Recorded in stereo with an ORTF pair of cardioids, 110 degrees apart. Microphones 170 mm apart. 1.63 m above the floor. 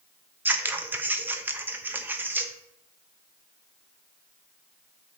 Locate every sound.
0.5 s scissors: 10° right, 0.8 m